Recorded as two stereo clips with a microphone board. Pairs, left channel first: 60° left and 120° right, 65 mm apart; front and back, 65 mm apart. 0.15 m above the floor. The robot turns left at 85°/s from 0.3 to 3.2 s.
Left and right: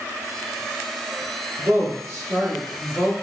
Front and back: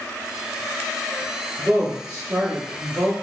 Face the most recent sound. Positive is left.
turn(degrees=115)